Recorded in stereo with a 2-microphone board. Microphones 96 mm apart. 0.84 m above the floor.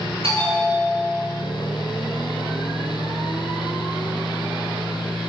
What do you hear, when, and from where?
0.2 s a bell: 75° right (ahead or behind), 8 m